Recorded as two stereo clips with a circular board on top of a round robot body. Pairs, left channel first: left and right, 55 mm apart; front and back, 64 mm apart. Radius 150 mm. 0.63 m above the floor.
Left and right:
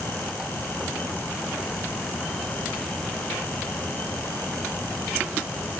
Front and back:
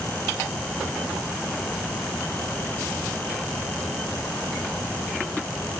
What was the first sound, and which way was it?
Only background noise.